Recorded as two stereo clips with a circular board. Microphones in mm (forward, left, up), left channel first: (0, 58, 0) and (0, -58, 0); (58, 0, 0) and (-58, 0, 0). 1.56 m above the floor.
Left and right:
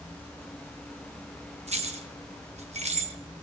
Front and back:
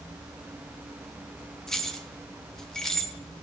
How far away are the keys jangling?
About 1.3 m.